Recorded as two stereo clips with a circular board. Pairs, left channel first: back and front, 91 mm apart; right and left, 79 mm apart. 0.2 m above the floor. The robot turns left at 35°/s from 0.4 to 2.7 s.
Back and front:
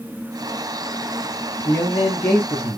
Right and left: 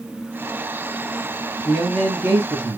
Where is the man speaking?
165° left, 1.6 m; by 2.8 s 125° left, 1.6 m.